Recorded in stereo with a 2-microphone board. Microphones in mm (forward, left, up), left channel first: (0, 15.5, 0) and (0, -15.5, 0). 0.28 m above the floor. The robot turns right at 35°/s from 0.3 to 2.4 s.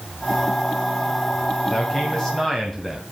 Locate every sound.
1.7 s a man speaking: 30° left (ahead or behind), 1.7 m; by 3.0 s 15° left (ahead or behind), 1.7 m